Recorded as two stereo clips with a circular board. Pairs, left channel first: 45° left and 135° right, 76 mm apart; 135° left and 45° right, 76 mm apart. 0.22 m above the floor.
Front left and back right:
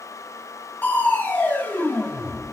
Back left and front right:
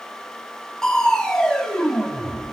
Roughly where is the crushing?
Ahead left.